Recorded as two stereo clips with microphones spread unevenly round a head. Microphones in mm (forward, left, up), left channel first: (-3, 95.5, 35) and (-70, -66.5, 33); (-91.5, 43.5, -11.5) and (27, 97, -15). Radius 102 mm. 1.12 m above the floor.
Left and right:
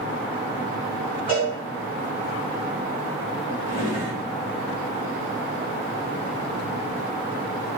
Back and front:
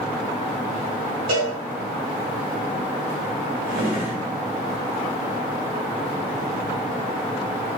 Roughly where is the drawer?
Ahead.